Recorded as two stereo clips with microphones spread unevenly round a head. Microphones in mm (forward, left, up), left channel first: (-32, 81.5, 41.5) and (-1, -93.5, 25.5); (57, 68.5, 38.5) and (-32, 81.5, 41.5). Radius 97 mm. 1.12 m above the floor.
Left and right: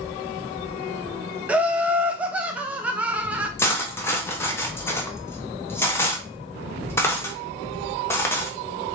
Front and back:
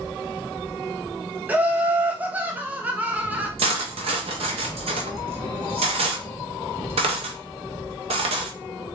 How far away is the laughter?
About 0.6 m.